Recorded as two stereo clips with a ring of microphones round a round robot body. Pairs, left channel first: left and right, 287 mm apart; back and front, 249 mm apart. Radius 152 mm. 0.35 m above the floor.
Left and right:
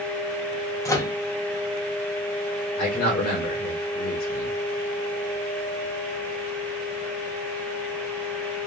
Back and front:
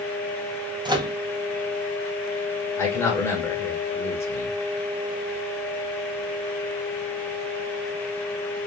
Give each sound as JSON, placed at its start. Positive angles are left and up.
{"t": 0.8, "sound": "a microwave", "azimuth_deg": 35, "distance_m": 0.6}
{"t": 2.8, "sound": "a man speaking", "azimuth_deg": 105, "distance_m": 1.1}